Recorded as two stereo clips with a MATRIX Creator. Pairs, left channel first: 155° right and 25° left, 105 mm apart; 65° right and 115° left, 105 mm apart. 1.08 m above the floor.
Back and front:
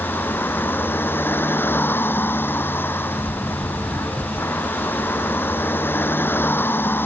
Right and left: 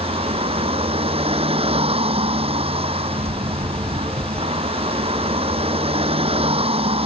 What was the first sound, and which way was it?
A vehicle, 135° left.